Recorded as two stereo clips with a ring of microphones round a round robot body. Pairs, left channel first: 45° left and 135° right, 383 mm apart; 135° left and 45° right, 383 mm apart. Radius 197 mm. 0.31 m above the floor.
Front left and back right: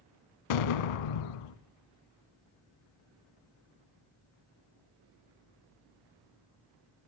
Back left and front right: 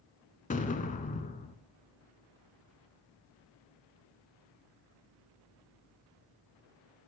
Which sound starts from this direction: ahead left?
An explosion, at 0.5 s.